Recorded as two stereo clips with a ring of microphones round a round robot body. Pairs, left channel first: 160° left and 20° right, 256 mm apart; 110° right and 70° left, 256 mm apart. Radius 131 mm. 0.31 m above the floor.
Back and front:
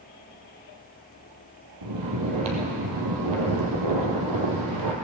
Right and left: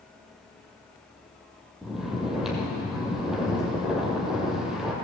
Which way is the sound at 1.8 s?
20° right.